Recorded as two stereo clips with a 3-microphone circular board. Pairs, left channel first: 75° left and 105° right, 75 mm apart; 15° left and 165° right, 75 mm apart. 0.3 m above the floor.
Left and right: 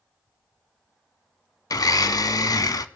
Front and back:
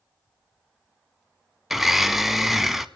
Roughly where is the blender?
Left.